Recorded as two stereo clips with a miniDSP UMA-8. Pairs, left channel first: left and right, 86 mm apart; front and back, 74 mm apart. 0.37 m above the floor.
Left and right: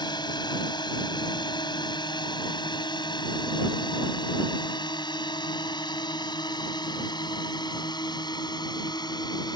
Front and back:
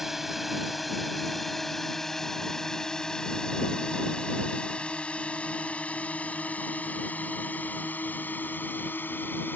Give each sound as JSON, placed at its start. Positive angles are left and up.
{"t": 0.0, "sound": "a drone", "azimuth_deg": 95}